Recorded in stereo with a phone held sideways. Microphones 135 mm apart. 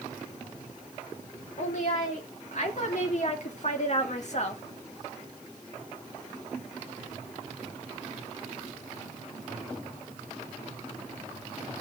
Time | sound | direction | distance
1.6 | a woman speaking | 60° left (ahead or behind) | 3.5 m